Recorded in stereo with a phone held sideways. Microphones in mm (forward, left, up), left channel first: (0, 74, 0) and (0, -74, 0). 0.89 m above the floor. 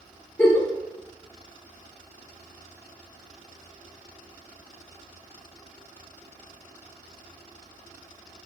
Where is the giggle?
10° left (ahead or behind), 1.3 m.